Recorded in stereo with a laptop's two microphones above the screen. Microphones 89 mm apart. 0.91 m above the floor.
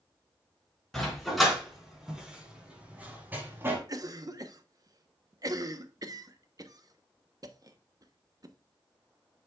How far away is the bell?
No bell in this recording.